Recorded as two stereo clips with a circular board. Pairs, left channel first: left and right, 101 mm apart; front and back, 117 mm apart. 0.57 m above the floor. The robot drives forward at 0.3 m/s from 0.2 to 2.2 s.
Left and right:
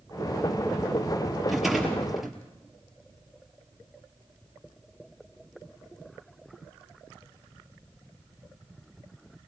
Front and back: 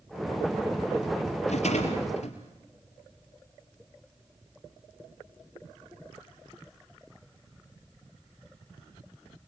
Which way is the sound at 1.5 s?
Straight ahead.